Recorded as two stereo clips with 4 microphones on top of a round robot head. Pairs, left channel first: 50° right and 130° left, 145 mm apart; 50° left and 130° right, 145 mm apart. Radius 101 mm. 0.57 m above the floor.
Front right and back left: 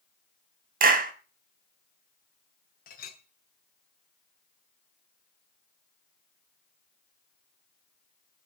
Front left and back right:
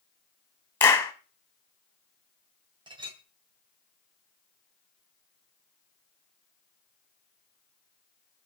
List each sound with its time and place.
0.8 s a clap: 125° left, 2.5 m
2.9 s a clink: 70° right, 2.5 m